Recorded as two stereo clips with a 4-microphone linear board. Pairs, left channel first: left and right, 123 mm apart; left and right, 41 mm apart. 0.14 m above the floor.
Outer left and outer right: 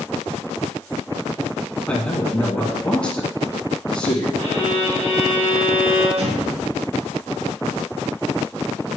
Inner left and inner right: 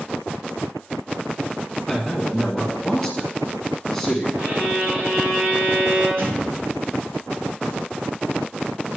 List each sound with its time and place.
1.9 s a man speaking: 10° left (ahead or behind), 1.3 m
4.4 s a violin: 40° right (ahead or behind), 3 m
6.2 s an explosion: 60° right (ahead or behind), 3 m